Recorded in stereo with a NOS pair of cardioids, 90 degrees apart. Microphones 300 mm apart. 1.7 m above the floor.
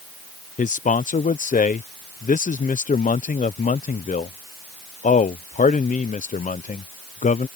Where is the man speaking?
25° left.